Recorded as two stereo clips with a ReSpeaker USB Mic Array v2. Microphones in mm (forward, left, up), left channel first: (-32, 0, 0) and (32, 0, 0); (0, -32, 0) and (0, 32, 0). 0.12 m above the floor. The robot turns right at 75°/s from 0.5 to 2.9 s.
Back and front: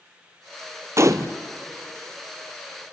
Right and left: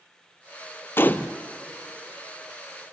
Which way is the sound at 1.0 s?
40° right.